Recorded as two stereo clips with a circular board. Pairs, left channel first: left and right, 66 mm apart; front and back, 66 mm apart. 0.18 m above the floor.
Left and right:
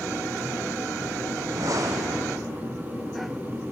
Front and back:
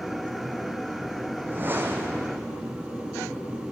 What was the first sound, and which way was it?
A whoosh, 120° right.